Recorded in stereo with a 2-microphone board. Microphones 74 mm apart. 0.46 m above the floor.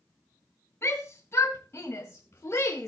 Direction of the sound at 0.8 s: 35° left (ahead or behind).